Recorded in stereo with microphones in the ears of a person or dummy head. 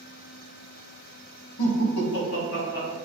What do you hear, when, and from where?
1.6 s laughter: 85° left, 0.9 m; by 3.0 s 50° left (ahead or behind), 1.4 m